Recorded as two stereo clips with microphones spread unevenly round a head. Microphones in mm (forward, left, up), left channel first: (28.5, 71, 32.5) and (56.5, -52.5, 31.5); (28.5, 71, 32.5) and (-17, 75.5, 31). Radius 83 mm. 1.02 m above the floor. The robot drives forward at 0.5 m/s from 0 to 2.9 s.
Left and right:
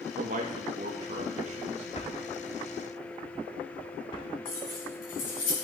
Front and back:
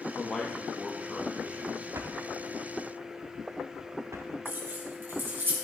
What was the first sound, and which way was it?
A man speaking, 90° right.